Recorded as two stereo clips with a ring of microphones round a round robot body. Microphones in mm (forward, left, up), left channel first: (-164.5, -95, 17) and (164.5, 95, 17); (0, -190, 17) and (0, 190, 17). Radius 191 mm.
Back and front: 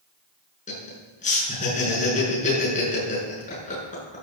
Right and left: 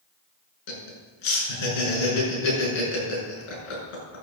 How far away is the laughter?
About 7 m.